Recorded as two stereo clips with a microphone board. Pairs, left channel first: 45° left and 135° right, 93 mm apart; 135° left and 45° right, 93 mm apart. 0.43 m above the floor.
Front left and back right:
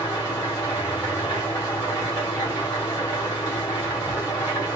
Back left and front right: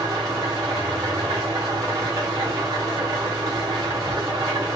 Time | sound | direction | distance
0.0 | an engine running | 5° left | 2 m